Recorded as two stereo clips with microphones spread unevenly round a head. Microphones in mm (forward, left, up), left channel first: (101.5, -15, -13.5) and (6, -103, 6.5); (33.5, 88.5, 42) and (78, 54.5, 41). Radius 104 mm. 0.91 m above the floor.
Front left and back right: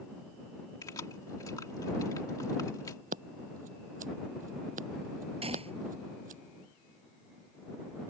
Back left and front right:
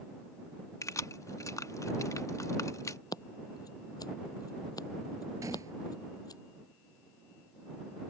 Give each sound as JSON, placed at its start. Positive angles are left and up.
{"t": 0.8, "sound": "keys jangling", "azimuth_deg": 115}
{"t": 3.1, "sound": "scissors", "azimuth_deg": 180}
{"t": 5.4, "sound": "a gunshot", "azimuth_deg": -95}